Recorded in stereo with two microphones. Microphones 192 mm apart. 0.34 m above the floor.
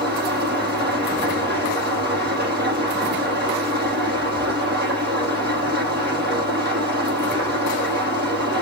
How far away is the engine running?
About 7.5 m.